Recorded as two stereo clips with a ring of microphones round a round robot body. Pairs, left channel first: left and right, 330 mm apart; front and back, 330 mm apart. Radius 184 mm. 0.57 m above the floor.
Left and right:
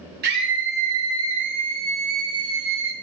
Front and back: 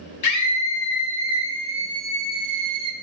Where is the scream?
30° right, 1.4 m; by 2.9 s 140° right, 1.4 m.